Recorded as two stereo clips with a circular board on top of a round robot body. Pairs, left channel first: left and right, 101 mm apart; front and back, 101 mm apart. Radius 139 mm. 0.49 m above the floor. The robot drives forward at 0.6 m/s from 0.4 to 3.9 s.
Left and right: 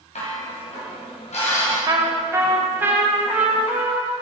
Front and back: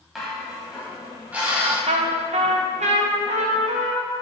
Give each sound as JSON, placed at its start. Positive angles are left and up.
{"t": 0.1, "sound": "dishes clattering", "azimuth_deg": 90, "distance_m": 3.0}
{"t": 1.9, "sound": "a trumpet", "azimuth_deg": -150, "distance_m": 0.7}